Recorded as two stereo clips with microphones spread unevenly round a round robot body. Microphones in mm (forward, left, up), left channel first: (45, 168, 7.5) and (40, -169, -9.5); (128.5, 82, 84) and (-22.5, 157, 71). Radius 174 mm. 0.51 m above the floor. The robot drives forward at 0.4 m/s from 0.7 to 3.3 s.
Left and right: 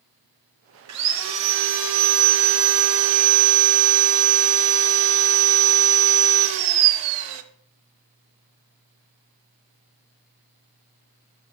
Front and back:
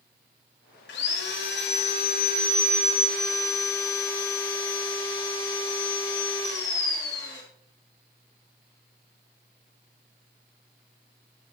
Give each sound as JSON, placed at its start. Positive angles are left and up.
{"t": 0.9, "sound": "sawing", "azimuth_deg": -45, "distance_m": 1.1}